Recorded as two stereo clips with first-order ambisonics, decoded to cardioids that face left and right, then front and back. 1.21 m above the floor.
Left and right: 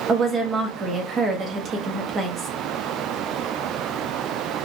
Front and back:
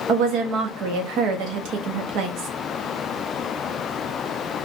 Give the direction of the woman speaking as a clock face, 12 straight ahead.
5 o'clock.